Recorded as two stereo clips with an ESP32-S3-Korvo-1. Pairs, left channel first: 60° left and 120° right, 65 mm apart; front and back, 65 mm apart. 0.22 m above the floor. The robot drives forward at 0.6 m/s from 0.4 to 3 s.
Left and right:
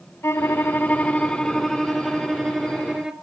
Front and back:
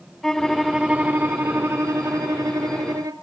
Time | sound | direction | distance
0.2 | a violin | 85° left | 0.7 m